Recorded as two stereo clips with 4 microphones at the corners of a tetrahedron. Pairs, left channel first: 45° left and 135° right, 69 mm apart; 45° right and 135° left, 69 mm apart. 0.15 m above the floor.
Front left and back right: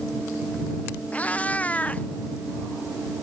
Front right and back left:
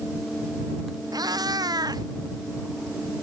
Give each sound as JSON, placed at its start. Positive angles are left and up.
{"t": 1.1, "sound": "a cat meowing", "azimuth_deg": 115}